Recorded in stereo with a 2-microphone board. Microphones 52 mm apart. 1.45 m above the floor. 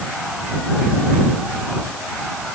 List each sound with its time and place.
Only background noise.